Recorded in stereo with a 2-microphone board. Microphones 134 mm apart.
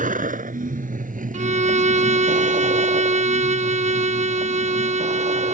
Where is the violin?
60° right (ahead or behind).